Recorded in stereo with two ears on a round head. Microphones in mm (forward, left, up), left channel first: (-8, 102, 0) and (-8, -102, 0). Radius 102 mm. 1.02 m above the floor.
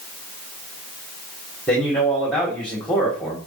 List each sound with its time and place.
1.7 s a man speaking: 5° left (ahead or behind), 2.5 m